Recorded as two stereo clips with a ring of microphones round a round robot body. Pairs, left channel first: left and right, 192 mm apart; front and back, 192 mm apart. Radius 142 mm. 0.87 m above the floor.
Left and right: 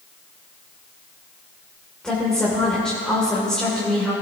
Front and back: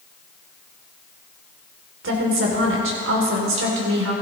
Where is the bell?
No bell in this recording.